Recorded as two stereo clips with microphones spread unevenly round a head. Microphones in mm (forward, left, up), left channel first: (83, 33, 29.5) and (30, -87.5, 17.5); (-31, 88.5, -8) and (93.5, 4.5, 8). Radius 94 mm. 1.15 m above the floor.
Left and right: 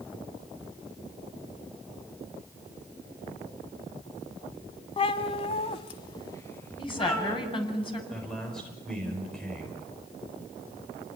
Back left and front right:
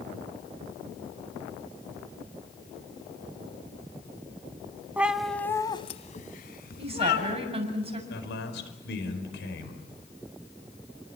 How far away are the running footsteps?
I don't hear running footsteps.